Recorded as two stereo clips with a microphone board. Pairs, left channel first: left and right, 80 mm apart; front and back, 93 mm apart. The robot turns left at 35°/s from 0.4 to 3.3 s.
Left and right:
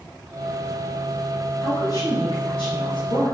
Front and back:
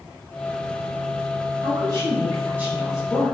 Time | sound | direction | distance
1.6 | a woman speaking | 140° left | 3 m